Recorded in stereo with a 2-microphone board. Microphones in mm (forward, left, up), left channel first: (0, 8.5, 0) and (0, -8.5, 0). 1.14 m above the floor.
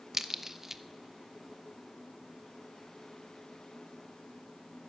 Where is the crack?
25° right (ahead or behind), 0.8 m.